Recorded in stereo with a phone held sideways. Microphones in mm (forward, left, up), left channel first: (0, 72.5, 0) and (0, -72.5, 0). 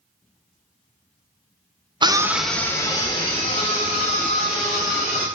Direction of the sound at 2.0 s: 35° right (ahead or behind).